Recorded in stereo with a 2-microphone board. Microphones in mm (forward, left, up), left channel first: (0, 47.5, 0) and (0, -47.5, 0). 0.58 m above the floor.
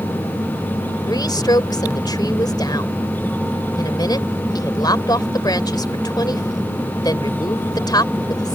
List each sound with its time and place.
1.1 s a woman speaking: 45° left (ahead or behind)